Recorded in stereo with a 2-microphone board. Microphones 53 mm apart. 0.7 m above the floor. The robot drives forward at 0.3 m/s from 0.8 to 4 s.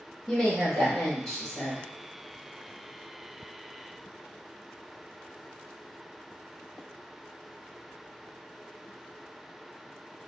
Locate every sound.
0.3 s a woman speaking: 10° left (ahead or behind), 0.9 m; by 1.8 s 5° left (ahead or behind), 1.0 m